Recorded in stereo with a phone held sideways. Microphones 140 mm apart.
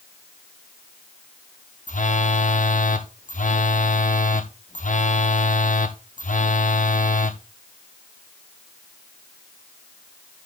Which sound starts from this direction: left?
A phone buzzing, at 1.9 s.